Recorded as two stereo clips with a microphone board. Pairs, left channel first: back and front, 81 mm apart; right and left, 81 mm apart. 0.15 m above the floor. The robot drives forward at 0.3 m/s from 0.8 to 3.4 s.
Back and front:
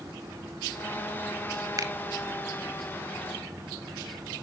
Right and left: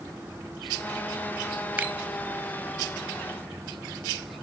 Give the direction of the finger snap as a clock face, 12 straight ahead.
11 o'clock.